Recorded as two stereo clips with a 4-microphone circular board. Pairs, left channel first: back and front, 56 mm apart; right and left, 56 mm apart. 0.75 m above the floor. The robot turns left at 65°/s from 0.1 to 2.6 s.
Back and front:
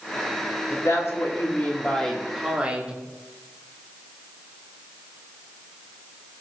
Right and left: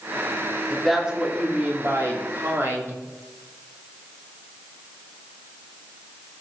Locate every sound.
0.7 s a woman speaking: 170° right, 2 m; by 3.0 s 65° left, 2 m